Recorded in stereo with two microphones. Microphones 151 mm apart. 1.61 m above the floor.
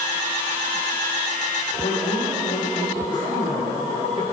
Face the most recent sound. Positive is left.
turn(degrees=60)  # may be behind; listen again after turning